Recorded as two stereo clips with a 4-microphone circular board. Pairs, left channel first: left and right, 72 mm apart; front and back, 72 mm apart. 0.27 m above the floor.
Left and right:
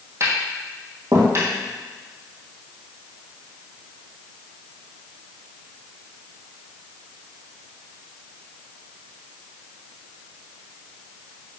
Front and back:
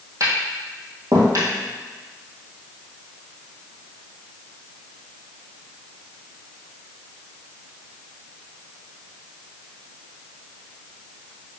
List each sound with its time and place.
0.2 s tapping: 140° right, 2 m